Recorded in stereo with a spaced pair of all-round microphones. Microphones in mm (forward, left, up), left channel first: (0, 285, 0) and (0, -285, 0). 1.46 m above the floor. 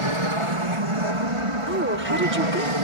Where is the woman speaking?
20° right (ahead or behind).